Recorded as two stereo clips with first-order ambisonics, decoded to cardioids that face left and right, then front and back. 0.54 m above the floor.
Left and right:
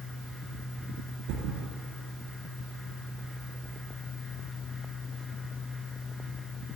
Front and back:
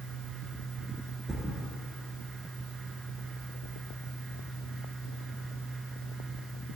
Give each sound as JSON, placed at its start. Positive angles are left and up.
{"t": 1.3, "sound": "a thud", "azimuth_deg": -105, "distance_m": 1.1}